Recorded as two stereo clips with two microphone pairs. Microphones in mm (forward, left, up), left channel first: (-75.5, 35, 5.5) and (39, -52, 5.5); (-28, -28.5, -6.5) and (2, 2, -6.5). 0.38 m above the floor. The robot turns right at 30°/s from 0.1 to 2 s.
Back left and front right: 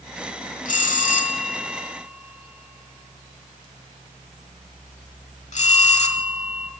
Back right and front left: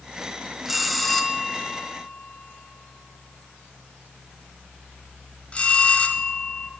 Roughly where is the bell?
Behind left.